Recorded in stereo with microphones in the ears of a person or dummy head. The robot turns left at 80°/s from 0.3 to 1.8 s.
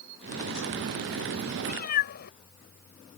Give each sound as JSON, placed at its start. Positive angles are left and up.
{"t": 1.6, "sound": "a cat meowing", "side_deg": 35}